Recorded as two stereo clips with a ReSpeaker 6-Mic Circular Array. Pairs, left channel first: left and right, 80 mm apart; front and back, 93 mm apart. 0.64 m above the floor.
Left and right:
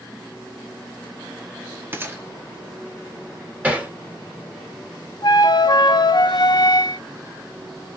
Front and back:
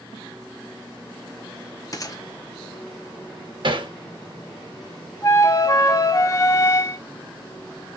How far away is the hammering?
About 1.6 m.